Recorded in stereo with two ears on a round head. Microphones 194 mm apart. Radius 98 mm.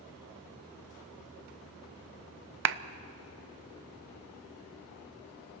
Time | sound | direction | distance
2.6 | a clap | 55° right (ahead or behind) | 0.6 m